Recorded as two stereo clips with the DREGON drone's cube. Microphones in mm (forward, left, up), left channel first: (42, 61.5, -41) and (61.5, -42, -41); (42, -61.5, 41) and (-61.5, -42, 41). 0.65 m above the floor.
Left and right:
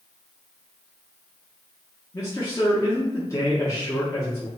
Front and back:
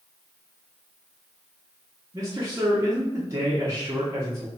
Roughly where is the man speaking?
Behind left.